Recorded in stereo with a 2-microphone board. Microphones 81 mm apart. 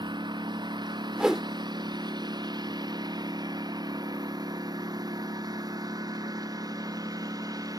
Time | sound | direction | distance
0.0 | a lawn mower | 70° right (ahead or behind) | ?
1.2 | a whoosh | 10° right (ahead or behind) | ?